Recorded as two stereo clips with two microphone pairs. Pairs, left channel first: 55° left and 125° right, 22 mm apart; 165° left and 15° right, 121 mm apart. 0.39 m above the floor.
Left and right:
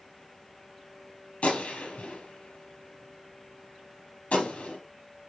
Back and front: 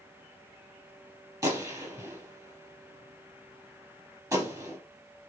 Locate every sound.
1.4 s a gunshot: 50° left, 5.5 m